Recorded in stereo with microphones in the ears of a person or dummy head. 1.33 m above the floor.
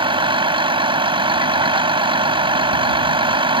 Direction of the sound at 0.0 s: 25° right (ahead or behind).